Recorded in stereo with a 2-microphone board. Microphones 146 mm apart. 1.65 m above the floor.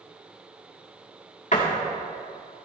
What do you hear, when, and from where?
1.5 s a door slam: 55° left (ahead or behind), 2 m